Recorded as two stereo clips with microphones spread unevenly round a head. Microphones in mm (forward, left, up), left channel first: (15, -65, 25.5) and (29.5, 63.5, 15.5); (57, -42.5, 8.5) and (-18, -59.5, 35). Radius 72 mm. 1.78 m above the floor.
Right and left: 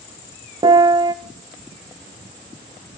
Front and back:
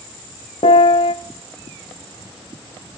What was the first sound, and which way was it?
A piano, 30° left.